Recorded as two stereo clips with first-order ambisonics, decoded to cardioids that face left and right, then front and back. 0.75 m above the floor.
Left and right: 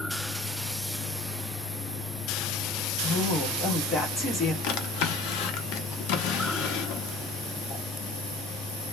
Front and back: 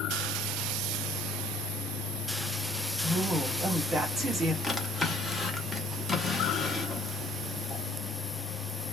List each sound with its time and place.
3.0 s a woman speaking: 130° left, 0.9 m
4.6 s a drawer: 80° left, 0.6 m